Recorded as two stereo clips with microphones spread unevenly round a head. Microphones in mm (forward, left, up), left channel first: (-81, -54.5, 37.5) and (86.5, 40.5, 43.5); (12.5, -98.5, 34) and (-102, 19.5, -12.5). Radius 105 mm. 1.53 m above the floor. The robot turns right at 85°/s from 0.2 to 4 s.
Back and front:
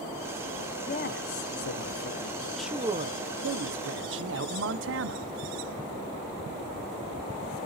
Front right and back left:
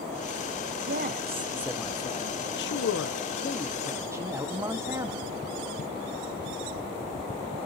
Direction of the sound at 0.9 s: 150° left.